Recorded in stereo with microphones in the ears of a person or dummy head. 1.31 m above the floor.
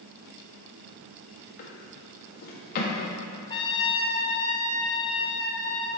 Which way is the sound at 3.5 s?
20° left (ahead or behind).